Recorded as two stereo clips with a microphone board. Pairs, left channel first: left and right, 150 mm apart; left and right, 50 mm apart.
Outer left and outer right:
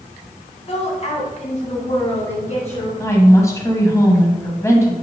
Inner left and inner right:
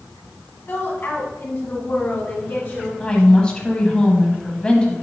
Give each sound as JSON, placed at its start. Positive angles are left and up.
{"t": 0.7, "sound": "a woman speaking", "side_deg": 45, "distance_m": 1.6}
{"t": 3.0, "sound": "a woman speaking", "side_deg": 20, "distance_m": 1.3}